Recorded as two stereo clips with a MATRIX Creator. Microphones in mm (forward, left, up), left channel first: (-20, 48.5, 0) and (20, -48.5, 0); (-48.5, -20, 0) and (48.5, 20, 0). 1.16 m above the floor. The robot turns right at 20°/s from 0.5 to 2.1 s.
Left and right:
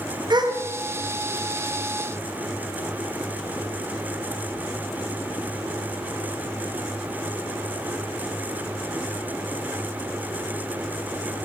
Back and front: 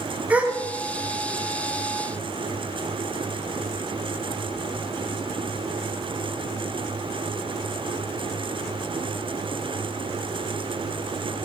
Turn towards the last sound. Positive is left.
turn(degrees=-15)